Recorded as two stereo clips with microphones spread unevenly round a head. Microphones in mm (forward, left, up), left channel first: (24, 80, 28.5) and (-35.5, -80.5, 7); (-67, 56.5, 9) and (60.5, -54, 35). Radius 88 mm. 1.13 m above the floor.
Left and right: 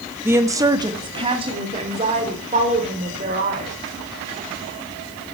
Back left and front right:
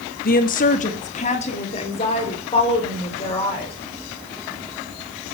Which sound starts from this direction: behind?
A woman speaking, at 0.2 s.